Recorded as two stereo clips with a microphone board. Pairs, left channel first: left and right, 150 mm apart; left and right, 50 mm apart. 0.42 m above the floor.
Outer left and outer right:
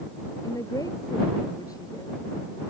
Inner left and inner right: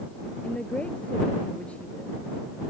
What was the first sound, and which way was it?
A woman speaking, 25° left (ahead or behind).